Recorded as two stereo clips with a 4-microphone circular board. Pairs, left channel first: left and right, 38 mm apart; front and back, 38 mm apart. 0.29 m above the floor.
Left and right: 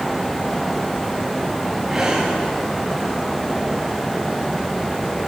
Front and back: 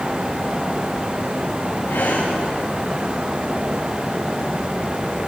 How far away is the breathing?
About 9 m.